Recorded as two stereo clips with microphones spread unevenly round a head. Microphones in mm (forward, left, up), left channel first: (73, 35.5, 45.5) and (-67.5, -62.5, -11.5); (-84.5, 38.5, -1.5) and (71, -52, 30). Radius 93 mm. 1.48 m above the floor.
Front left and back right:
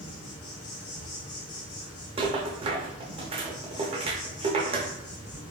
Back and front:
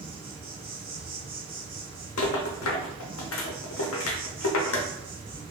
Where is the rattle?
155° left, 0.6 m.